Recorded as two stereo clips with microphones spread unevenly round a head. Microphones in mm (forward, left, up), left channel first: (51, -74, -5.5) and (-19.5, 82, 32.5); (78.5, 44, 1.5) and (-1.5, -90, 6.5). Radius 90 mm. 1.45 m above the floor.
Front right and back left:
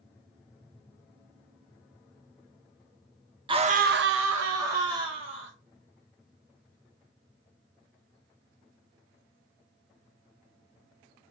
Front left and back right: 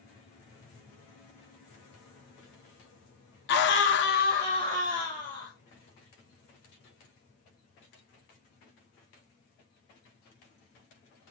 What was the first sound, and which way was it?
A scream, 50° left.